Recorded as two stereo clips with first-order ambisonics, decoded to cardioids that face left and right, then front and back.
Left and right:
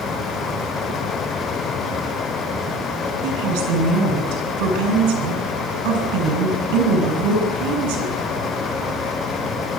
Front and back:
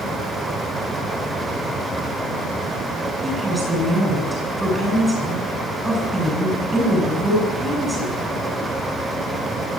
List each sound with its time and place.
3.2 s a woman speaking: 100° right, 8.5 m